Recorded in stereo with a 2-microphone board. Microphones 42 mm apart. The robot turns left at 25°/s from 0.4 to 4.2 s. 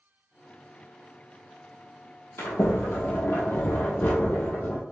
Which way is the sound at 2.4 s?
95° left.